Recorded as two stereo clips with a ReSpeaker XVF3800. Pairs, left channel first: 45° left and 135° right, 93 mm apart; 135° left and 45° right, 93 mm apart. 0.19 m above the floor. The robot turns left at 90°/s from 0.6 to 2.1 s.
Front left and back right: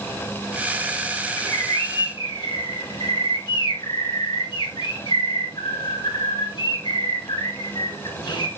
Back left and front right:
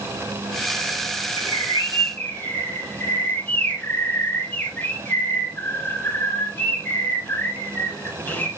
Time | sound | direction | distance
1.4 | a bird | 140° left | 2.5 m